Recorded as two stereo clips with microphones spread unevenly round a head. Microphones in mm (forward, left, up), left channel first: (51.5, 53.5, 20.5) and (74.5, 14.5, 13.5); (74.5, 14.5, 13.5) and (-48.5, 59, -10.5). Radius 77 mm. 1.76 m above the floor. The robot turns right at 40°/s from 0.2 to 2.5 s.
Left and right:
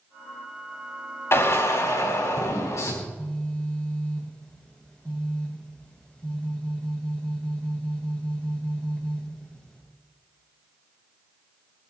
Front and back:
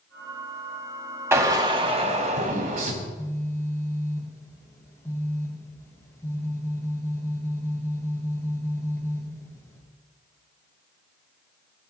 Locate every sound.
1.3 s a drill: 90° left, 4.5 m; by 2.9 s 135° left, 4.5 m
3.0 s a phone buzzing: 50° left, 5.5 m